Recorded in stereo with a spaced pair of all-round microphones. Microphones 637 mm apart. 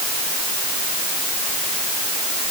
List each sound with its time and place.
Only background noise.